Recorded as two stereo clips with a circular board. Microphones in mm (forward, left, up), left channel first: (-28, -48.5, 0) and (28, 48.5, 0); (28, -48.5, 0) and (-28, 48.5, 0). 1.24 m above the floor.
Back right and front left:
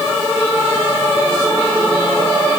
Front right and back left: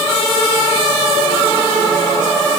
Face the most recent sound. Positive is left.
No sound to turn to.